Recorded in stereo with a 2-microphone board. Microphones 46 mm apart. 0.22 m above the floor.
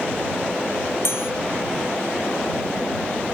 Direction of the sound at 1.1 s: 60° left (ahead or behind).